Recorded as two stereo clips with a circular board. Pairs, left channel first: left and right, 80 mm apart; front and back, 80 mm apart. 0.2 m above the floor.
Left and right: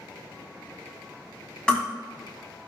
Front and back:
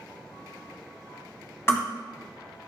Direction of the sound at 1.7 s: 25° left.